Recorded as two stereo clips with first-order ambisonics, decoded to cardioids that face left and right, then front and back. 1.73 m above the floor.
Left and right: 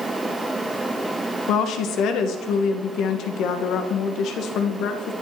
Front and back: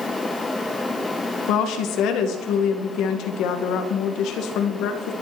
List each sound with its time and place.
1.5 s a woman speaking: 40° left, 2 m